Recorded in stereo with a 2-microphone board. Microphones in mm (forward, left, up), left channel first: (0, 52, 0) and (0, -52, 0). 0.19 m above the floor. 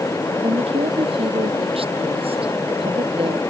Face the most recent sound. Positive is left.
turn(degrees=-65)  # may be behind; listen again after turning